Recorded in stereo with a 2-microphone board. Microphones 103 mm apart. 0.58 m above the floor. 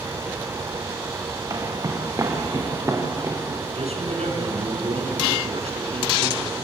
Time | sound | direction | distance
1.5 | footsteps | 35° right (ahead or behind) | 4.5 m
3.8 | a man speaking | 85° right | 5 m